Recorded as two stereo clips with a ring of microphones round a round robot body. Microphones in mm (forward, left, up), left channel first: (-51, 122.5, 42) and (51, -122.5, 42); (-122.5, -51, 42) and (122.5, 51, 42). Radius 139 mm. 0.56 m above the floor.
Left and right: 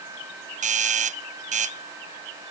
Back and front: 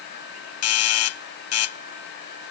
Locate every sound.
0.6 s a doorbell: 130° right